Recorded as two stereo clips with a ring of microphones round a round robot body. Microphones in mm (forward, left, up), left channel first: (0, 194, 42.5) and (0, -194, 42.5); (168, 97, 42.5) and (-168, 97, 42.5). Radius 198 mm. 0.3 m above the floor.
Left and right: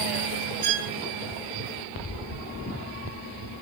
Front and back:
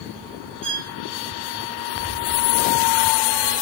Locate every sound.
0.6 s a violin: 110° right, 1.8 m